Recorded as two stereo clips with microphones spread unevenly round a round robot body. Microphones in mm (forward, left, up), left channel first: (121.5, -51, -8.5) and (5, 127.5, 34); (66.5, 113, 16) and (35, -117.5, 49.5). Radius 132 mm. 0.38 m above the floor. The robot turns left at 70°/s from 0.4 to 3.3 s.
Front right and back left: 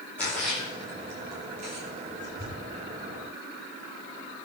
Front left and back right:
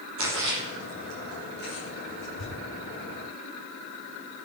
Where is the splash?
140° right, 5.5 m; by 2.5 s 70° left, 5.5 m.